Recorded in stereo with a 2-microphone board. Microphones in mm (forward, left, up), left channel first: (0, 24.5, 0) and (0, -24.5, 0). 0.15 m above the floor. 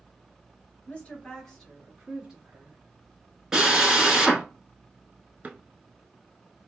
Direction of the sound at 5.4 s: 35° right (ahead or behind).